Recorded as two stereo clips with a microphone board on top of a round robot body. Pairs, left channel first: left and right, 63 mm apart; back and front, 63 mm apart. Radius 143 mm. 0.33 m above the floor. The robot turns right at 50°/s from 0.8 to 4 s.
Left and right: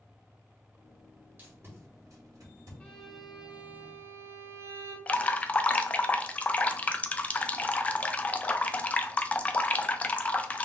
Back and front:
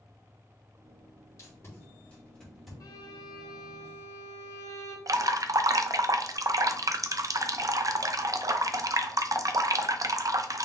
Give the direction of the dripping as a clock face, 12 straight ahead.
11 o'clock.